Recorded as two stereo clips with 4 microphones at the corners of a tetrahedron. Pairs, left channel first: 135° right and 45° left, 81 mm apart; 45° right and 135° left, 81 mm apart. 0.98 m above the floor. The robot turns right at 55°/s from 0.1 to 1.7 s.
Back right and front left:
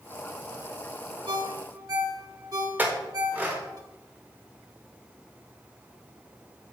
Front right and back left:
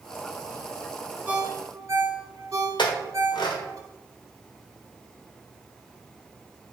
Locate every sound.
1.3 s a ringtone: 60° left, 1.4 m; by 3.8 s 85° left, 1.4 m
2.8 s a clink: 25° right, 1.7 m